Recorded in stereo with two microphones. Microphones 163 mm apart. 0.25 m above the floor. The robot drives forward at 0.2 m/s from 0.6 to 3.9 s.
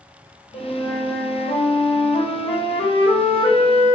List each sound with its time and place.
0.5 s a flute: 50° left (ahead or behind), 0.8 m; by 4.0 s 30° left (ahead or behind), 1.3 m